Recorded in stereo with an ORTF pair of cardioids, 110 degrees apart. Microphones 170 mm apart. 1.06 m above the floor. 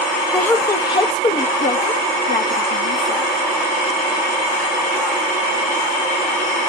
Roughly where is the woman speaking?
Ahead.